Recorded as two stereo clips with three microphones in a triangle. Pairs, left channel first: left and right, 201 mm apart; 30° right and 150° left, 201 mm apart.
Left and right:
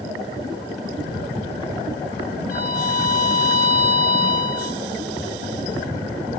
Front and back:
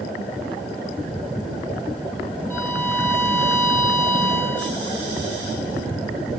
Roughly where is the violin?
Ahead left.